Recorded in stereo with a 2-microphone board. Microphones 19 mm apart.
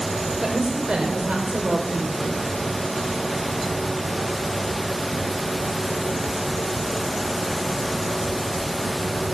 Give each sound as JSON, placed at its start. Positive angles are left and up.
{"t": 0.4, "sound": "a woman speaking", "side_deg": -55, "distance_m": 2.0}